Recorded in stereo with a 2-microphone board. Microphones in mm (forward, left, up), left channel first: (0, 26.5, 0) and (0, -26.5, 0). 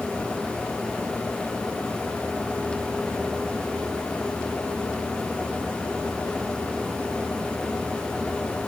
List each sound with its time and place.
Only background noise.